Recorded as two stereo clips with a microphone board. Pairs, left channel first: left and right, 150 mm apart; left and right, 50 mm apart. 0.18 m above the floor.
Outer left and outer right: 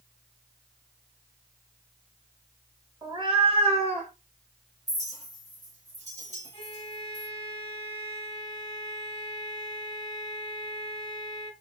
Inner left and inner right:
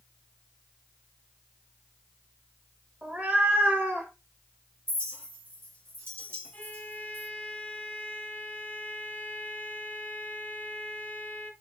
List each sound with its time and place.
3.0 s a cat meowing: 25° right (ahead or behind), 0.8 m; by 4.1 s 50° right (ahead or behind), 1.3 m
4.9 s a clink: 55° right (ahead or behind), 1.3 m
6.5 s a violin: 35° left (ahead or behind), 1.1 m